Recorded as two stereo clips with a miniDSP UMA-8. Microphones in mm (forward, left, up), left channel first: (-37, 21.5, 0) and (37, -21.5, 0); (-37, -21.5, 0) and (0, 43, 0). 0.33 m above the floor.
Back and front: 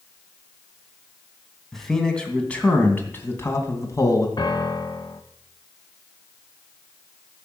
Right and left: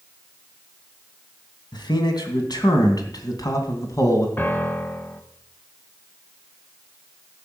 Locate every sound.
1.7 s a man speaking: 125° right, 2.5 m; by 4.3 s 165° right, 2.5 m
4.4 s a piano: 175° left, 1.0 m